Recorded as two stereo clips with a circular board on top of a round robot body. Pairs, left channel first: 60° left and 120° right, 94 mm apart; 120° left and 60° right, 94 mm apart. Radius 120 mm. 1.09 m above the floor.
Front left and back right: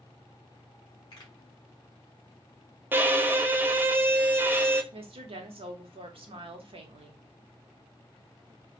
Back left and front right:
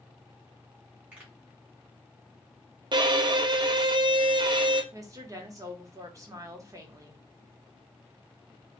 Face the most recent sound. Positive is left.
turn(degrees=-115)